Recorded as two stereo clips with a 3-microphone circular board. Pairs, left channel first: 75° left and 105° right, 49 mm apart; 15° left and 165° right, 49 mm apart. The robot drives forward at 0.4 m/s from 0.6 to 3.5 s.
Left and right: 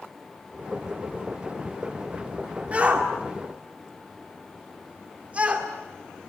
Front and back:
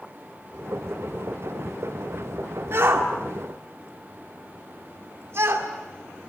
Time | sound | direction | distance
2.7 | a shout | 160° right | 1.9 m